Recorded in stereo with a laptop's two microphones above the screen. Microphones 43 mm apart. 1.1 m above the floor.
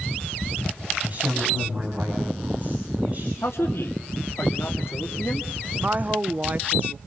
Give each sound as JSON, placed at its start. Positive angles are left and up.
{"t": 1.0, "sound": "a woman speaking", "side_deg": -35, "distance_m": 7.5}
{"t": 3.4, "sound": "a man speaking", "side_deg": 65, "distance_m": 3.0}
{"t": 5.8, "sound": "a woman speaking", "side_deg": -40, "distance_m": 0.8}